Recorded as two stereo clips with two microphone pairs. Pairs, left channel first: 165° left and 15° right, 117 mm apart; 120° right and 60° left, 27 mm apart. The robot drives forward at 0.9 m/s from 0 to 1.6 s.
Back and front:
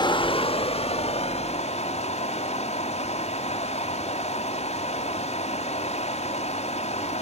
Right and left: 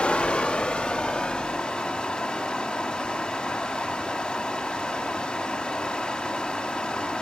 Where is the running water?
155° right, 0.7 m; by 7.2 s 175° right, 2 m.